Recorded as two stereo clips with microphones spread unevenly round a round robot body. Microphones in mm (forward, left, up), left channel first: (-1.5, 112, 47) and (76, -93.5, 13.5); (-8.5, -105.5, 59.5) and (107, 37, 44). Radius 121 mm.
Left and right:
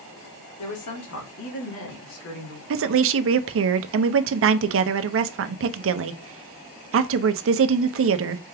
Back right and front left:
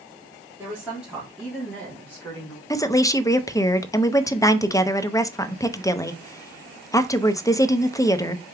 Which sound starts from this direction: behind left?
A woman speaking, at 0.6 s.